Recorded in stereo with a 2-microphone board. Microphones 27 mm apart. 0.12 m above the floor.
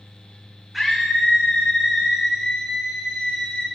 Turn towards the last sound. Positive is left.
turn(degrees=-10)  # may be behind; listen again after turning